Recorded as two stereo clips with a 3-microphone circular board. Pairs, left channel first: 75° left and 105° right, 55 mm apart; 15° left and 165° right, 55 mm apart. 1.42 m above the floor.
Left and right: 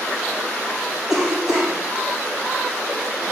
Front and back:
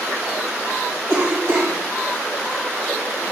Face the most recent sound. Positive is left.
turn(degrees=175)